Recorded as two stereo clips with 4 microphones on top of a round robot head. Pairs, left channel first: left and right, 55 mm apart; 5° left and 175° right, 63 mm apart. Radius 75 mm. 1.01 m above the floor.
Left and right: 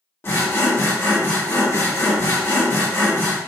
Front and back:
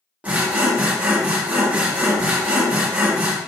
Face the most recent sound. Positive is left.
turn(degrees=120)